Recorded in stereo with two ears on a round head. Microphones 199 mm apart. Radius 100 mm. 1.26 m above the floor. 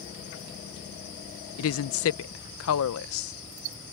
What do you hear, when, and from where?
1.6 s a woman speaking: 65° left (ahead or behind)